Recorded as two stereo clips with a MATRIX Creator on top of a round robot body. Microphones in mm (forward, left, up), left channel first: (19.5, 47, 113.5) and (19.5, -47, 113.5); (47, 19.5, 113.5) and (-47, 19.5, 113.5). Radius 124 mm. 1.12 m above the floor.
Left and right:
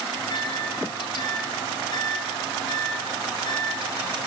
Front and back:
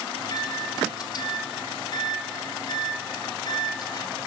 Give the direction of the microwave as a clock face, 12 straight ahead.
10 o'clock.